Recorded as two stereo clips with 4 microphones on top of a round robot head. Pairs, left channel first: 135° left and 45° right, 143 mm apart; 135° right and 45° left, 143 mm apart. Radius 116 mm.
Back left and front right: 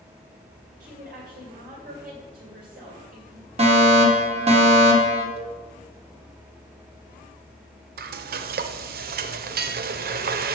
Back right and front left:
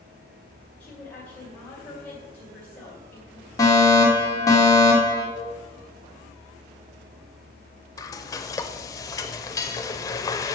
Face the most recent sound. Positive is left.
turn(degrees=-65)